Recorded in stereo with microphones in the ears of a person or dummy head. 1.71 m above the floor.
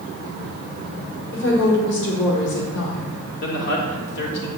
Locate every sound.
1.3 s a woman speaking: 75° left (ahead or behind), 4.5 m
3.4 s a man speaking: 60° left (ahead or behind), 4 m